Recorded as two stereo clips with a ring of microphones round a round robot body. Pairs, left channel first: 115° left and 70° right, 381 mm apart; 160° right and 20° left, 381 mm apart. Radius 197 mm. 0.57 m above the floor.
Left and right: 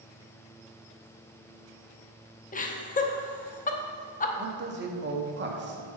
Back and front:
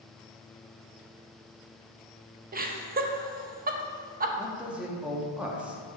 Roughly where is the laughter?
Ahead left.